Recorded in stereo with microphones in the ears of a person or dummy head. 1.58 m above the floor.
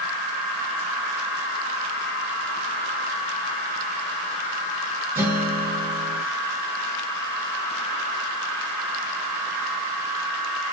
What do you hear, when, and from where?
5.2 s a guitar: 10° right (ahead or behind), 1.1 m